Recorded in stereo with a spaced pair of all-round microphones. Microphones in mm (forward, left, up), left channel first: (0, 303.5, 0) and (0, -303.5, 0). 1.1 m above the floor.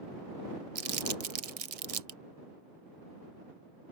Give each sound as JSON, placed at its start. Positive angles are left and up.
{"t": 0.8, "sound": "crumpling", "side_deg": -60}